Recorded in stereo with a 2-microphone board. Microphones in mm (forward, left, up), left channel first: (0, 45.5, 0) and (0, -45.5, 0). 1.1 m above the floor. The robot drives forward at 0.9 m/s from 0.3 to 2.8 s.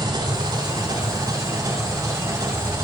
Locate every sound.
0.0 s an engine running: 50° right (ahead or behind), 4 m; by 2.9 s 30° right (ahead or behind), 5.5 m